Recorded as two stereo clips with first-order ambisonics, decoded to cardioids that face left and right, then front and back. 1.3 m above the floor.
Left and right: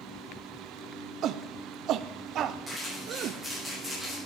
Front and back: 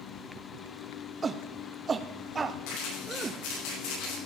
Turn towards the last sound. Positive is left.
turn(degrees=0)